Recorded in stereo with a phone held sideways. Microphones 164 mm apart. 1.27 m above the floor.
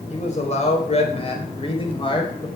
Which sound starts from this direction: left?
A man speaking, at 0.1 s.